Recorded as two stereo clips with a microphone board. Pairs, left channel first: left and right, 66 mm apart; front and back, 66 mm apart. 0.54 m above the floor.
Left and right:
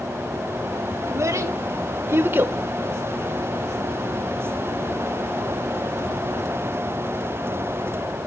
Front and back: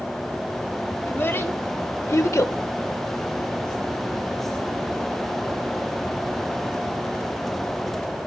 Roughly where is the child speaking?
Ahead right.